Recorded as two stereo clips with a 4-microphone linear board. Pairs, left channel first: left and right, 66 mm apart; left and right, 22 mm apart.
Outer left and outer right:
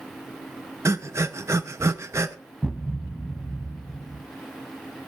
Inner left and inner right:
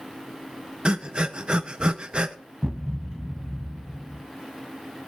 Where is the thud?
Centre (ahead or behind), 1.5 m.